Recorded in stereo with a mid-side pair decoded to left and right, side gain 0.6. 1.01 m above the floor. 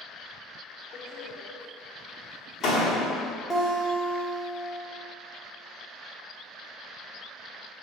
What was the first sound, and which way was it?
A door slam, 40° left.